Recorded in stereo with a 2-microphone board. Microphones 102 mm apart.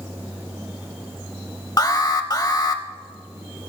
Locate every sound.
1.8 s an alarm: 35° left (ahead or behind), 0.9 m